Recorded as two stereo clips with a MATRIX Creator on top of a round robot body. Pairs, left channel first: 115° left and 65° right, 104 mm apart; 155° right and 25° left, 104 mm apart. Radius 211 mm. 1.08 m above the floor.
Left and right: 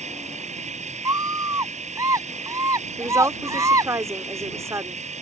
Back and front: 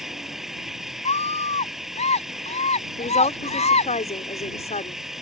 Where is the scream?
130° right.